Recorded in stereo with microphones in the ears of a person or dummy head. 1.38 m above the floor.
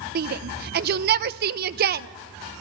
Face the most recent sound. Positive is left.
turn(degrees=-55)  # may be behind; listen again after turning